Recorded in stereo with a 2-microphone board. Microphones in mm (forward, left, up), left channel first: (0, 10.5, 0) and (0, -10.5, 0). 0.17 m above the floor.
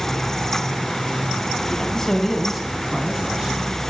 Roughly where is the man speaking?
Left.